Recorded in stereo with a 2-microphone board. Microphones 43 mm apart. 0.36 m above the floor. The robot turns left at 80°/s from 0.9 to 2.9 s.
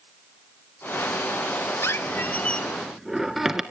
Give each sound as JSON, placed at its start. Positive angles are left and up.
{"t": 1.8, "sound": "a squeak", "azimuth_deg": 75, "distance_m": 1.5}